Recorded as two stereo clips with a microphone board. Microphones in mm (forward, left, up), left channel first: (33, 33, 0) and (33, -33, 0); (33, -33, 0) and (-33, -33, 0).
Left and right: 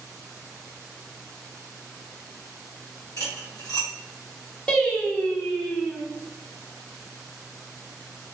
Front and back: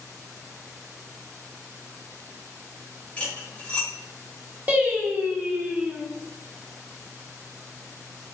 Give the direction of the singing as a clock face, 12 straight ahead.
7 o'clock.